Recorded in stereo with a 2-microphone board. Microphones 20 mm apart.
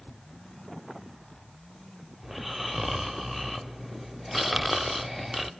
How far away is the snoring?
About 0.6 m.